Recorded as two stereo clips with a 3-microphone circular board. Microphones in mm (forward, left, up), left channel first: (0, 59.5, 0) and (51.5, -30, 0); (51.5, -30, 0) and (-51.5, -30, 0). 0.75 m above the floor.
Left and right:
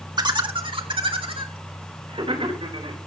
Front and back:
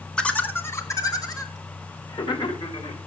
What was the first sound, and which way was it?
Laughter, 80° right.